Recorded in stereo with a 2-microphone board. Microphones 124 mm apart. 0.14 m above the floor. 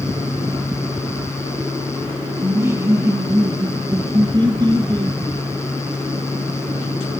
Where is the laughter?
15° right (ahead or behind), 1.7 m; by 5.2 s 35° right (ahead or behind), 2.5 m.